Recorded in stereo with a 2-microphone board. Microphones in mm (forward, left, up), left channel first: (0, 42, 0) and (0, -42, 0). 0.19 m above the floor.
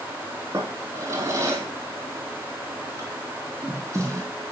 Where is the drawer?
35° right (ahead or behind), 4.5 m.